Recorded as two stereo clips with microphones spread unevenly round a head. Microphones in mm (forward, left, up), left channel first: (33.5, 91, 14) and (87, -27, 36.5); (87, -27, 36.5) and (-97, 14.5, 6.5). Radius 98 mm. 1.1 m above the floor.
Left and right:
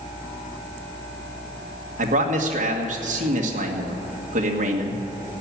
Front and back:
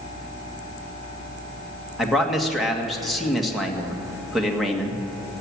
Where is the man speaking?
105° right, 1.7 m.